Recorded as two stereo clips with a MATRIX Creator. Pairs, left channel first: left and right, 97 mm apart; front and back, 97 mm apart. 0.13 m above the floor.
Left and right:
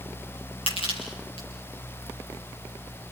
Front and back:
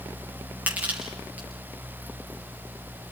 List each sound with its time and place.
0.7 s crushing: 105° left, 6 m